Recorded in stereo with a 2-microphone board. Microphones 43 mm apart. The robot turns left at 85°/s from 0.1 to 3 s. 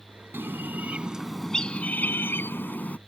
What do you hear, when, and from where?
0.3 s a bird: 95° right; by 3.0 s 40° left